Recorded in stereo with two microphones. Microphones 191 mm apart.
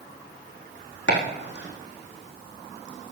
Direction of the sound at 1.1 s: 70° left (ahead or behind).